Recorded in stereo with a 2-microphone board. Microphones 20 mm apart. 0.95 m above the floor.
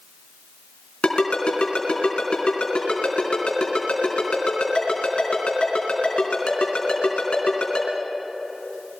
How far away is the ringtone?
About 4 m.